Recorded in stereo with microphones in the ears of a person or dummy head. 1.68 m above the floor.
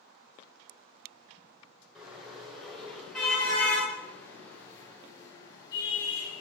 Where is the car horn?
5° right (ahead or behind), 9 m; by 6.4 s 25° left (ahead or behind), 8.5 m.